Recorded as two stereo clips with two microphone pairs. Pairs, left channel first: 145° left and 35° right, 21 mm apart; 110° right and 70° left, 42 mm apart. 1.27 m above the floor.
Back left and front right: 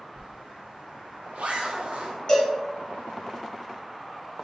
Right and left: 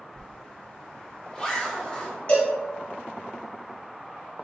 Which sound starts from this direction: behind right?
A cowbell, at 2.3 s.